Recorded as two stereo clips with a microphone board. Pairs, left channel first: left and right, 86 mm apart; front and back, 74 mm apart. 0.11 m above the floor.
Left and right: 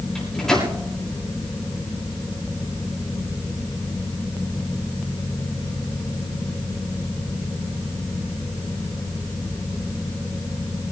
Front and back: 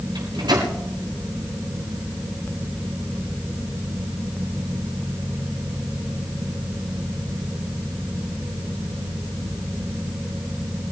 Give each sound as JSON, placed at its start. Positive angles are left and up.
{"t": 0.1, "sound": "a microwave", "azimuth_deg": 175, "distance_m": 7.0}